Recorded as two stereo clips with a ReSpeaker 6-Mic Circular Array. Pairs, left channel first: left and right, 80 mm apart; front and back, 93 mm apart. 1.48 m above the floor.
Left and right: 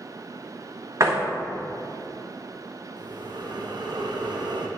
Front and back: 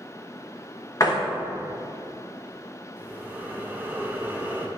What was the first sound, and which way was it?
A door slam, 45° right.